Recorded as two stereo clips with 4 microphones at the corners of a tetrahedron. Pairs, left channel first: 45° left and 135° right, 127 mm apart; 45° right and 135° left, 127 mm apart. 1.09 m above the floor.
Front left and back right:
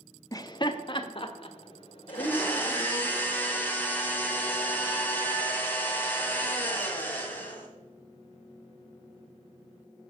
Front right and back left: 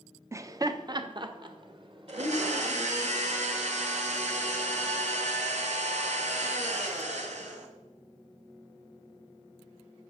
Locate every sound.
0.3 s laughter: 85° left, 0.8 m; by 3.1 s 90° left, 3 m
2.1 s a blender: 120° left, 2 m